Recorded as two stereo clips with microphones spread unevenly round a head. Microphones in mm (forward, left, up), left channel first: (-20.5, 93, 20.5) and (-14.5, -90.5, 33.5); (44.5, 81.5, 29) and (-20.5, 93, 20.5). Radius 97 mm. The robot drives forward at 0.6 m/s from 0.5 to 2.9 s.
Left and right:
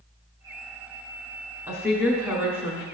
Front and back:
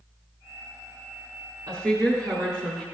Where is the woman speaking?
160° right, 3.5 m; by 2.8 s 165° right, 4 m.